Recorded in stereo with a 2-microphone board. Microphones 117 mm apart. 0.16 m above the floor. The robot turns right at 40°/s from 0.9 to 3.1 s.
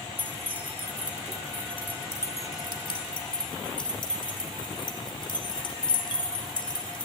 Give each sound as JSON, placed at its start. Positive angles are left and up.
{"t": 0.2, "sound": "keys jangling", "side_deg": -15, "distance_m": 1.3}